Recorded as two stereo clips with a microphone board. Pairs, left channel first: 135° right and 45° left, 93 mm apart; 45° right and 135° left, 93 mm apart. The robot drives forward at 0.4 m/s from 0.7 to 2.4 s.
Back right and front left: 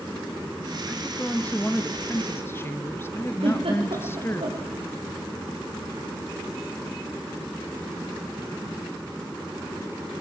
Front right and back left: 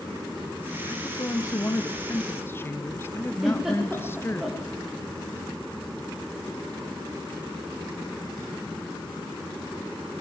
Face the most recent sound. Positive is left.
turn(degrees=50)